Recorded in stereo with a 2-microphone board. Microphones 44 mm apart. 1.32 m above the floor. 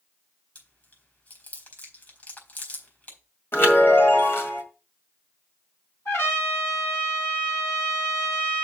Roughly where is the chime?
Left.